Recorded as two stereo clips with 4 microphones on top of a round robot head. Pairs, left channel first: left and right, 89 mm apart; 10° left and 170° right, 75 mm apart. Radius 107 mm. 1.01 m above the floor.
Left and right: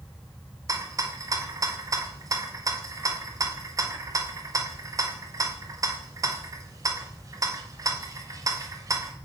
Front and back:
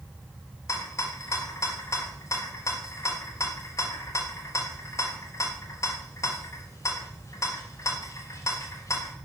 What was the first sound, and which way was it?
A rattle, 40° right.